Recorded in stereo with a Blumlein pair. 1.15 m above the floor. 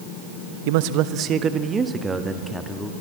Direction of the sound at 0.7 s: 50° right.